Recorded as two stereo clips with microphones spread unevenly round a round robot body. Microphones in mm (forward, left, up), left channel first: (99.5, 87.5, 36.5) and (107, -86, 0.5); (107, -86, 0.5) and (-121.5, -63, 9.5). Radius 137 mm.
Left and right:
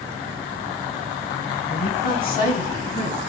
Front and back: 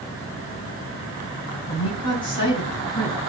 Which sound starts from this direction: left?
A woman speaking, at 1.7 s.